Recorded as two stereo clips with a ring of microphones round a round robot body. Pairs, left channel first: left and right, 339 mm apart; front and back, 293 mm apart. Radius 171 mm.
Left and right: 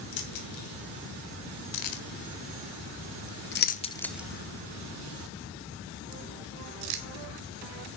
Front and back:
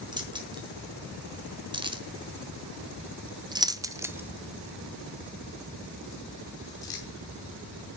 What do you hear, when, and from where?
0.1 s keys jangling: 105° left, 2.5 m; by 7.0 s 80° right, 1.9 m